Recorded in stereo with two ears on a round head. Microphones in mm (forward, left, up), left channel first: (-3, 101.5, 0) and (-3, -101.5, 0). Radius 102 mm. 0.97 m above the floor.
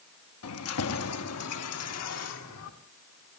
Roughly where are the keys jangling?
Left.